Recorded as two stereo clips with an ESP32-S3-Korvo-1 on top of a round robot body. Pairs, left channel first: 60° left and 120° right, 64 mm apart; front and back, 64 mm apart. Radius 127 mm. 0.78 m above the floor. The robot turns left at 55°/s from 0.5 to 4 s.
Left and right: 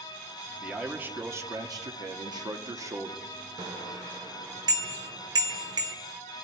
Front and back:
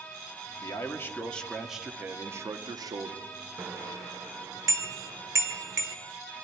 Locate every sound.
0.6 s a man speaking: 35° right, 1.6 m; by 3.3 s straight behind, 1.6 m
3.6 s a bicycle bell: 115° right, 2 m; by 6.0 s 140° right, 2 m